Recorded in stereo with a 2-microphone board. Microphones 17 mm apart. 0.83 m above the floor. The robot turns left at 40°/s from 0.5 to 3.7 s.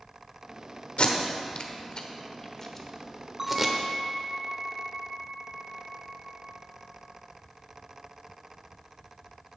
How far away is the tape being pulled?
About 1.0 m.